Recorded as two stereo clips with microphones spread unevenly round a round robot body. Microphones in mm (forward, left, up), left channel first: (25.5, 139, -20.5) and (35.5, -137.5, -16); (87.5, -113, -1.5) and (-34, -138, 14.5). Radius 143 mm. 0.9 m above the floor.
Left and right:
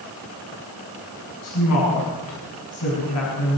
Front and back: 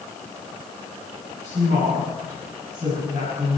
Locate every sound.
1.4 s a woman speaking: 130° left, 6.5 m